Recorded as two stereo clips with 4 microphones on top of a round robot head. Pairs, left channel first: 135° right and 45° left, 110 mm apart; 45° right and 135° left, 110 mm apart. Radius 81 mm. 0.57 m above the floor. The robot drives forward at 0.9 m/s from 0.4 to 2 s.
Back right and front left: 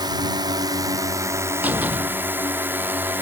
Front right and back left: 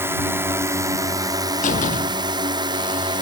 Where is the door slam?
35° right.